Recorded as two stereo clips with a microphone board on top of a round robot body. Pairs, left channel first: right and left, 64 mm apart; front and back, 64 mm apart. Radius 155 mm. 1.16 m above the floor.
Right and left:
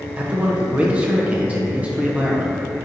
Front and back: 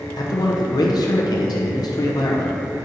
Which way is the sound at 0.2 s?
20° left.